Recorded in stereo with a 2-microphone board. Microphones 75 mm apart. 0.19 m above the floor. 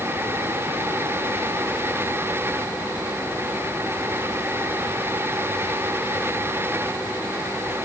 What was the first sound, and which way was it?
Only background noise.